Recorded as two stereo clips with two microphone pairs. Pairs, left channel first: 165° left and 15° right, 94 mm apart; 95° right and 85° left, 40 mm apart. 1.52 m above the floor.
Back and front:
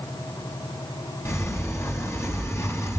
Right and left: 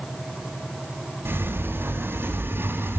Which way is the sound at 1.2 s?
100° left.